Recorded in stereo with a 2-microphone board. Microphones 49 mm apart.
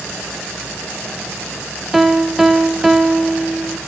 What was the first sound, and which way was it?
A piano, 10° right (ahead or behind).